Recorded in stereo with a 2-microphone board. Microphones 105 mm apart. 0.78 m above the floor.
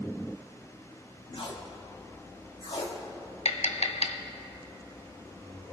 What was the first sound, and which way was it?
Tape being pulled, 60° left (ahead or behind).